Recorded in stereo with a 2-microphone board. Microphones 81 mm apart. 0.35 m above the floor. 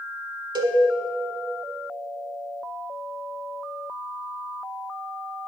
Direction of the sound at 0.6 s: 70° right (ahead or behind).